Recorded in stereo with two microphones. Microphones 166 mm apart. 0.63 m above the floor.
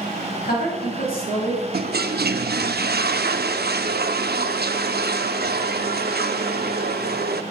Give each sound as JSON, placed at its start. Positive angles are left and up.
{"t": 0.4, "sound": "a woman speaking", "side_deg": 65, "distance_m": 5.0}
{"t": 1.7, "sound": "a toilet flushing", "side_deg": -75, "distance_m": 0.6}